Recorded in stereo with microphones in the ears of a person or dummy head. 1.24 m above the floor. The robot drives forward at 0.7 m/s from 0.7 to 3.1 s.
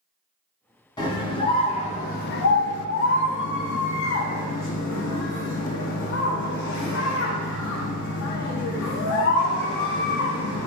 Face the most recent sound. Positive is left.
turn(degrees=60)  # may be behind; listen again after turning